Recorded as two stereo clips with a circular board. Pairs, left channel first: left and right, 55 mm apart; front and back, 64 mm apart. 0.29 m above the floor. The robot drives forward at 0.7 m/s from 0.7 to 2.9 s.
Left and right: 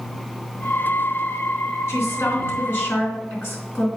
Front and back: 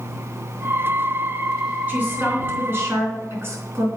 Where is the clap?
No clap in this recording.